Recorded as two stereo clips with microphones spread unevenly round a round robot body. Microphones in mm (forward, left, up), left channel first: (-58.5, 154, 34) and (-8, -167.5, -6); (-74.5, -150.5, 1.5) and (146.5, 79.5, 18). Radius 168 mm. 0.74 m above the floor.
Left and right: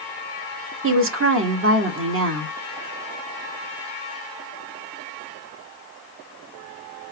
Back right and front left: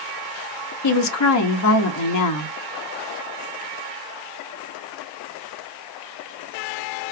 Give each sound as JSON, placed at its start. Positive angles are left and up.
{"t": 0.8, "sound": "a woman speaking", "azimuth_deg": -120, "distance_m": 0.9}